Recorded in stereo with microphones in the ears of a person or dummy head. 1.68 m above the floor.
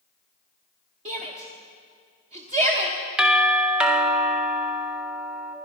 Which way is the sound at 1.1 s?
40° right (ahead or behind).